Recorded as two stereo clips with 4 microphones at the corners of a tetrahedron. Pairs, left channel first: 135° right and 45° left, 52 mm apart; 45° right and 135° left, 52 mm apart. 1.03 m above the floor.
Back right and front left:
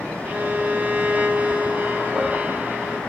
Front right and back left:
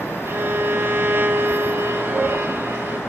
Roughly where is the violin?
Left.